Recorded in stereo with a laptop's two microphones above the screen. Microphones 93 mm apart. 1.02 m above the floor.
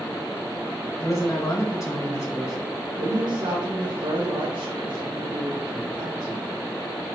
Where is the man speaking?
30° left (ahead or behind), 1.9 m.